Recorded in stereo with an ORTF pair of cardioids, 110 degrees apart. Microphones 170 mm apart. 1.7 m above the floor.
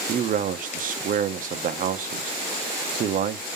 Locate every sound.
0.1 s a man speaking: 55° right, 0.9 m